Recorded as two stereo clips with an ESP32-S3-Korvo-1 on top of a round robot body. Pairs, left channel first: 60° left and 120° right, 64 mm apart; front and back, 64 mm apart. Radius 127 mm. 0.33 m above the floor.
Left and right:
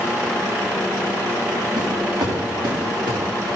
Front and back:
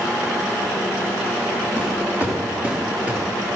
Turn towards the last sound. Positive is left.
turn(degrees=-110)